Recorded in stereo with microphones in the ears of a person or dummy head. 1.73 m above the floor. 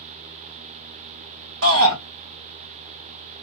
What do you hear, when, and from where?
1.6 s a shout: 90° right, 2.5 m